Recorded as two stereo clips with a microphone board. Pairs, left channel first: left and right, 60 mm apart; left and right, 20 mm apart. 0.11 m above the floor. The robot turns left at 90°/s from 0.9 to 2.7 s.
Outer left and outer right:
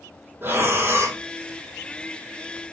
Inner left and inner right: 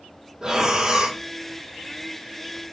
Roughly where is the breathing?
Right.